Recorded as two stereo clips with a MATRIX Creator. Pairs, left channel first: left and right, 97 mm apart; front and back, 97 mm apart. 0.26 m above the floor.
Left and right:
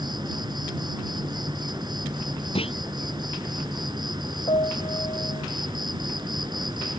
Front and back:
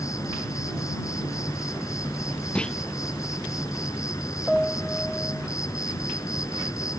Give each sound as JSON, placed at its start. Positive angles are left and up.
{"t": 0.0, "sound": "an insect", "azimuth_deg": -55}
{"t": 2.5, "sound": "a clunk", "azimuth_deg": 80}
{"t": 4.5, "sound": "a piano", "azimuth_deg": 90}